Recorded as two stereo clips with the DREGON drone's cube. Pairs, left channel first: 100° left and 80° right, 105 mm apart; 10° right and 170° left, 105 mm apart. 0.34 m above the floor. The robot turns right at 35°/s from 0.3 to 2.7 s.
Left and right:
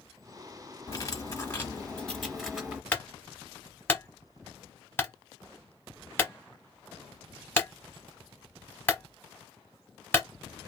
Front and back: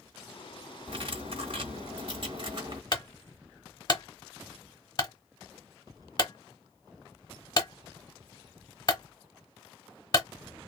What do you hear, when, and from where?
0.9 s cutlery clinking: 145° left, 1.2 m; by 2.8 s 155° right, 1.2 m
2.9 s a clunk: 30° left, 0.9 m